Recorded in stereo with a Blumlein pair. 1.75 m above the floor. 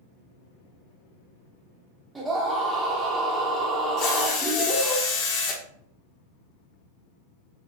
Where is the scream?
10° right, 0.8 m.